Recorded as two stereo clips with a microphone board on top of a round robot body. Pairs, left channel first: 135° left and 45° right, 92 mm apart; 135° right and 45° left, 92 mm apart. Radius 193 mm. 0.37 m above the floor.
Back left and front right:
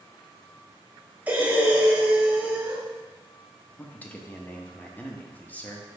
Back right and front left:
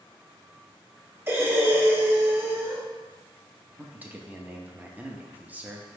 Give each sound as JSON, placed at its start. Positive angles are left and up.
{"t": 1.3, "sound": "breathing", "azimuth_deg": 10, "distance_m": 1.1}
{"t": 3.8, "sound": "a man speaking", "azimuth_deg": 90, "distance_m": 0.8}